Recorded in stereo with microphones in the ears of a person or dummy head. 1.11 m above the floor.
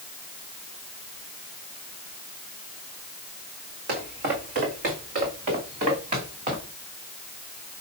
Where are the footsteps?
50° right (ahead or behind), 2.5 m; by 6.7 s 40° right (ahead or behind), 4.5 m.